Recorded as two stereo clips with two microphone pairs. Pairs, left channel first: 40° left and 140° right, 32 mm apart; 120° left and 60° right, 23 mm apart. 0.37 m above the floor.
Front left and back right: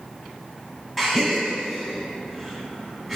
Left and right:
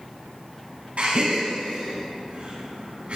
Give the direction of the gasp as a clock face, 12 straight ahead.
2 o'clock.